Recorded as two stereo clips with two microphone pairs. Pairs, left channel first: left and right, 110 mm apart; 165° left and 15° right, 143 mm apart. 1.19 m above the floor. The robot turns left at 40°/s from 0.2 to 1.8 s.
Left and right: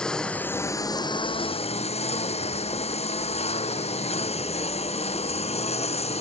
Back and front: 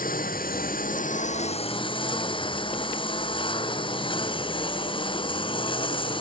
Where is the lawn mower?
175° left; by 6.2 s 110° left.